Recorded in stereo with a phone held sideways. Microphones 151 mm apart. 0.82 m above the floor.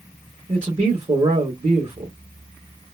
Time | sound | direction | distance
0.5 | a man speaking | 45° right (ahead or behind) | 1.4 m